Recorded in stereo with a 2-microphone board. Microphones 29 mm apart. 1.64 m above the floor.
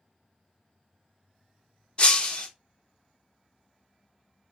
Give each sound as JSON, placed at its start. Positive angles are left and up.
{"t": 2.0, "sound": "breaking glass", "side_deg": 30, "distance_m": 1.1}